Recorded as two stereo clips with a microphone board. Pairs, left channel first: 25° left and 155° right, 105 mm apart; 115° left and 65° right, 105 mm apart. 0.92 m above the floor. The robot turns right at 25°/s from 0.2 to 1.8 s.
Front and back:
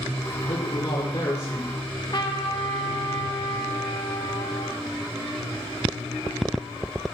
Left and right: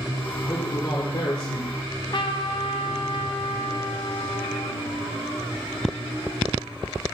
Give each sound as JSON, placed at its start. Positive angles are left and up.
{"t": 0.4, "sound": "a man speaking", "azimuth_deg": 55, "distance_m": 2.5}
{"t": 1.8, "sound": "a trumpet", "azimuth_deg": 70, "distance_m": 1.0}